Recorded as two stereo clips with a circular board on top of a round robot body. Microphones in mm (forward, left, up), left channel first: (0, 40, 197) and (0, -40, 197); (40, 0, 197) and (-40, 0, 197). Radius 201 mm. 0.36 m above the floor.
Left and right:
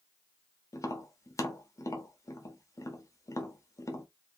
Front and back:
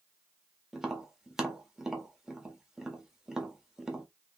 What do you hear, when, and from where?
0.7 s tapping: 100° left, 1.0 m